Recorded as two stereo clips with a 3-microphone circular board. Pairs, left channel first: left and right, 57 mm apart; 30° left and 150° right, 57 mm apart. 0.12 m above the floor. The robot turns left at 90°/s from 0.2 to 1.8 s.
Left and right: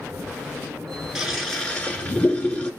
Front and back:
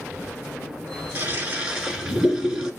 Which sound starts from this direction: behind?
A toilet flushing, at 1.1 s.